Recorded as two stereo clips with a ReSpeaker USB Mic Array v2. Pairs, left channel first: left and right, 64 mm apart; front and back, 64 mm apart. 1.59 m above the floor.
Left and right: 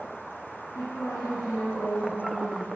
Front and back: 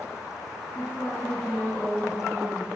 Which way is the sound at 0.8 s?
80° left.